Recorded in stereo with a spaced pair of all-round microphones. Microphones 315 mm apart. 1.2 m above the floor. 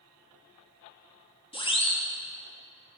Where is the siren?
15° left (ahead or behind), 3.5 m.